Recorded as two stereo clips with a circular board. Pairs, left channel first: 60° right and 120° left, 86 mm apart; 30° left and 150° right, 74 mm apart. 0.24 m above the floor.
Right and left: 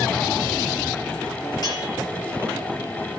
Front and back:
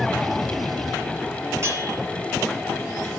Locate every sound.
1.6 s a bell: 100° right, 6 m